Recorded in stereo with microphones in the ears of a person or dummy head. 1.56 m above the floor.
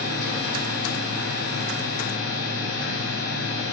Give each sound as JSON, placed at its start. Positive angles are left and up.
{"t": 0.0, "sound": "a machine running", "side_deg": 70, "distance_m": 0.8}